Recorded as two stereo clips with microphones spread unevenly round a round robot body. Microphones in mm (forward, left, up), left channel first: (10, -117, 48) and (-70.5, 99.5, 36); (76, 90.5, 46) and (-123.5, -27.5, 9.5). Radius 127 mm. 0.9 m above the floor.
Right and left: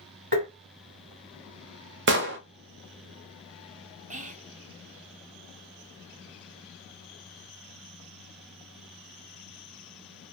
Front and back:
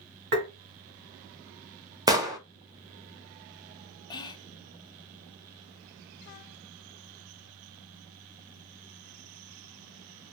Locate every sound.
0.3 s tapping: 160° left, 1.7 m
2.1 s an explosion: 135° left, 0.7 m
4.1 s whispering: 105° left, 0.6 m